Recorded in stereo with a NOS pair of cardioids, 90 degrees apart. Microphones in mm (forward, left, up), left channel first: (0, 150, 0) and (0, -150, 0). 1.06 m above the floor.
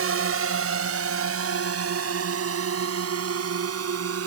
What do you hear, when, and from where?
0.0 s a drone: 50° right